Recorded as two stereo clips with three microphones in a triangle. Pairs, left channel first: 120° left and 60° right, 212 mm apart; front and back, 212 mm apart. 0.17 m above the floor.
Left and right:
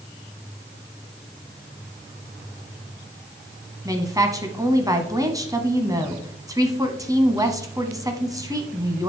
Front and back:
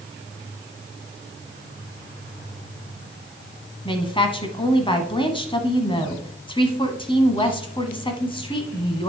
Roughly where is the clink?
No clink in this recording.